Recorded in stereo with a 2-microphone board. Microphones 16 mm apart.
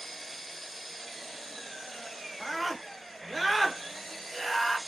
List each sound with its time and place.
0.0 s an engine running: 20° left (ahead or behind), 1.8 m
2.4 s a scream: 10° left (ahead or behind), 1.2 m